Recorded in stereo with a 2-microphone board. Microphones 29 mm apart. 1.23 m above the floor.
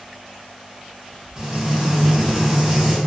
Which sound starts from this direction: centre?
Frying, at 1.4 s.